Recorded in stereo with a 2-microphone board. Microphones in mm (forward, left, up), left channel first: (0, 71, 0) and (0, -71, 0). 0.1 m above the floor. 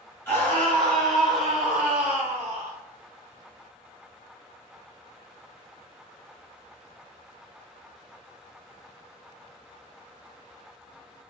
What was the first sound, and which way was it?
A scream, 15° left (ahead or behind).